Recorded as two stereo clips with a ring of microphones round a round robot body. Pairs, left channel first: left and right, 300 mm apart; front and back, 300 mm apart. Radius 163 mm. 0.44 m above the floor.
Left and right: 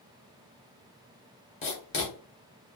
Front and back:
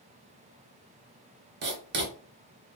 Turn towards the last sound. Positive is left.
turn(degrees=150)